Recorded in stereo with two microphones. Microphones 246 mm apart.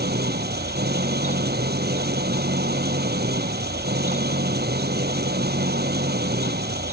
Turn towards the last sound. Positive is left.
turn(degrees=-40)  # may be behind; listen again after turning